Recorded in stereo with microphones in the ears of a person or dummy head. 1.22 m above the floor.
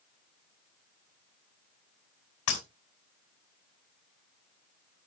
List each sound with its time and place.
2.5 s breaking glass: 75° left (ahead or behind), 4.5 m